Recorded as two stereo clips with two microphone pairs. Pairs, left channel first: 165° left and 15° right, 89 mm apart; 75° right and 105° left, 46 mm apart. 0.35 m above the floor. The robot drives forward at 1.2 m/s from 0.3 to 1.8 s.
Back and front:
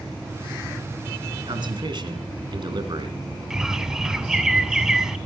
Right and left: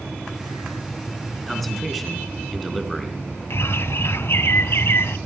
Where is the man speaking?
15° left, 3 m.